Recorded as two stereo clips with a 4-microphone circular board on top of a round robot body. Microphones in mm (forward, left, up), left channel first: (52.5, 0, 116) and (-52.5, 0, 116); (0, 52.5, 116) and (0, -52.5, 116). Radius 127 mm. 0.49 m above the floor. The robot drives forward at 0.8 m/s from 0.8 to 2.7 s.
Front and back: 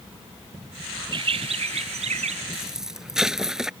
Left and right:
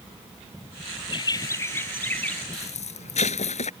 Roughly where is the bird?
Behind left.